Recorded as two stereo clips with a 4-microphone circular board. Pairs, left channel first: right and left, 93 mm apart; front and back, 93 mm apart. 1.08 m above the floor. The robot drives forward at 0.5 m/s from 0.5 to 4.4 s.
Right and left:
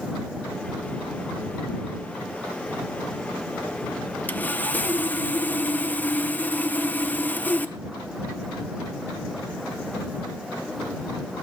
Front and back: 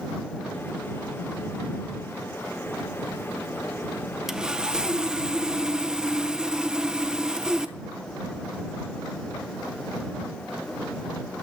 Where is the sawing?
100° right, 0.7 m; by 7.8 s 115° right, 0.7 m.